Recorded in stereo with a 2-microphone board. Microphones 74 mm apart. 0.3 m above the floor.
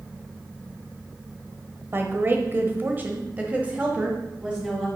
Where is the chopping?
No chopping in this recording.